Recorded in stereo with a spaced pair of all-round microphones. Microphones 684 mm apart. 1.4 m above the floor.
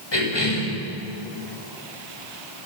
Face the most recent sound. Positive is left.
turn(degrees=40)  # may be behind; listen again after turning